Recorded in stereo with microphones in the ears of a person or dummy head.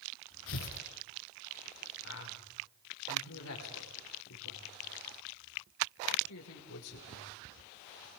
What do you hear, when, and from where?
0.5 s tearing paper: 70° left (ahead or behind), 4.5 m
2.0 s a man speaking: 80° left, 5.5 m